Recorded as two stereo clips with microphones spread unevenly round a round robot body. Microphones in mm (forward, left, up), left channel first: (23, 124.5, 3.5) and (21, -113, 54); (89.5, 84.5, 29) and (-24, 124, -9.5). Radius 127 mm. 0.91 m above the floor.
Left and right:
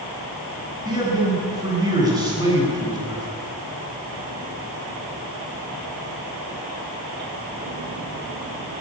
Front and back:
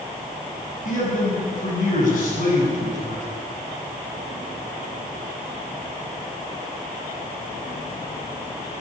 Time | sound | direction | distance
0.8 | a man speaking | 15° right | 9 m